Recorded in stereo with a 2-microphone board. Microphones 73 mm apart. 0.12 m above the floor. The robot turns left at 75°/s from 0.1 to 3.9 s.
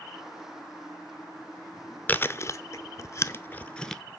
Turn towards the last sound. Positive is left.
turn(degrees=5)  # may be behind; listen again after turning